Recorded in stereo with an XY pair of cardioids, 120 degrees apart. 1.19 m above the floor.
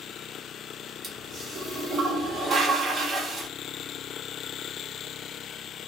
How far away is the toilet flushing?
About 0.8 m.